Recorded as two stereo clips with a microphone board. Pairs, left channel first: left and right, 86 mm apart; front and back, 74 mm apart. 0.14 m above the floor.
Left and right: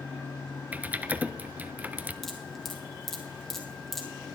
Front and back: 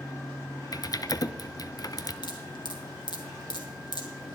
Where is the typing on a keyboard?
20° right, 0.6 m.